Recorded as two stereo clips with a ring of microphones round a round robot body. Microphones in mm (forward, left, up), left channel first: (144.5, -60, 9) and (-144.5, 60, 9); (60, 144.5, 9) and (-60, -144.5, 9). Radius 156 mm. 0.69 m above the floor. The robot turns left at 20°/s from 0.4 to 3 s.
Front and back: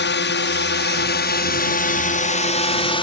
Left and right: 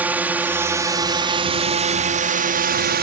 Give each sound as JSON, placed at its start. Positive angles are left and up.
{"t": 0.0, "sound": "a drone", "azimuth_deg": -30}